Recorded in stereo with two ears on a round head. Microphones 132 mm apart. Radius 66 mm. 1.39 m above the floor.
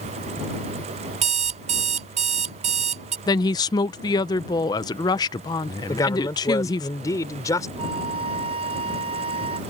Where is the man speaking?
25° left (ahead or behind).